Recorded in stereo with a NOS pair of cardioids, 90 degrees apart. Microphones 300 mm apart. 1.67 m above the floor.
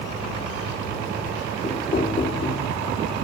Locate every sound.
1.6 s knocking: 30° left, 2.0 m